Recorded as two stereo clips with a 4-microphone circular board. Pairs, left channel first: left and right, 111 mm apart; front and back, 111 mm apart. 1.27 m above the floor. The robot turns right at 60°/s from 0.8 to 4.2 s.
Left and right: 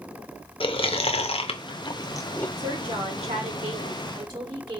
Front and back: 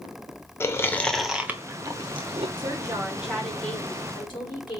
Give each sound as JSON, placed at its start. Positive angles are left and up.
{"t": 0.6, "sound": "chewing", "azimuth_deg": 65, "distance_m": 0.5}
{"t": 2.6, "sound": "a woman speaking", "azimuth_deg": -135, "distance_m": 1.4}